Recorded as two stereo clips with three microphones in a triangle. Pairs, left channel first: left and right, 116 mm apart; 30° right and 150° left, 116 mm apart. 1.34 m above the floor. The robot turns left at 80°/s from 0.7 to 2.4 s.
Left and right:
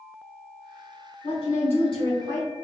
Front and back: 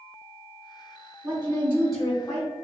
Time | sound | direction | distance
1.2 | a woman speaking | 115° left | 0.8 m